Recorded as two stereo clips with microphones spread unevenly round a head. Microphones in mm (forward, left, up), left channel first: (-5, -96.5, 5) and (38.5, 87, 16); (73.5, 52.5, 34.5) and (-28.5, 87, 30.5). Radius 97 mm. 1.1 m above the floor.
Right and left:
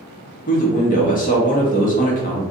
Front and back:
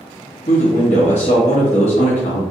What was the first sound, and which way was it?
A man speaking, 55° right.